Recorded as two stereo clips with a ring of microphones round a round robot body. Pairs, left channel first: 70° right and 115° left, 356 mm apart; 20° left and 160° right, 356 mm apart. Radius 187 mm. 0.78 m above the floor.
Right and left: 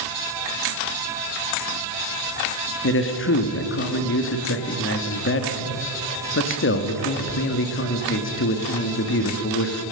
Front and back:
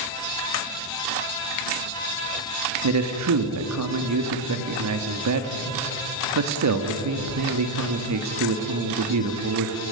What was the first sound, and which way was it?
A man speaking, 120° right.